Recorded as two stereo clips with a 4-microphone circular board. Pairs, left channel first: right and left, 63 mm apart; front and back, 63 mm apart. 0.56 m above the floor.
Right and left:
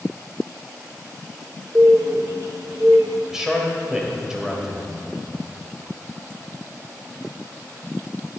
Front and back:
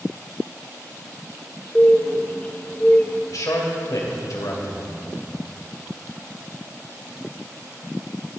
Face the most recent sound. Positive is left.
turn(degrees=10)